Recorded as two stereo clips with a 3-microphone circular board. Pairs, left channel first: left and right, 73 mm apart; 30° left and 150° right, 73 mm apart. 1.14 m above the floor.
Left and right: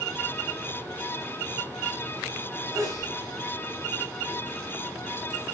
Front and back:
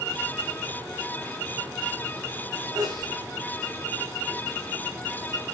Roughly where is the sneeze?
Behind right.